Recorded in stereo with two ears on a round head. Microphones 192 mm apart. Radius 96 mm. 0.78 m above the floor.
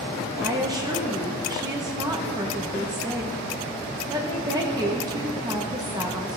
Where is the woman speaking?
20° right (ahead or behind), 1.0 m.